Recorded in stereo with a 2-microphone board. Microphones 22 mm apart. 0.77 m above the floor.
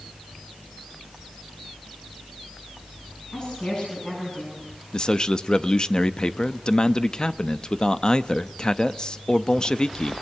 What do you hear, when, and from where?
3.3 s a woman speaking: 40° left (ahead or behind), 9 m
4.9 s a man speaking: 35° left (ahead or behind), 0.6 m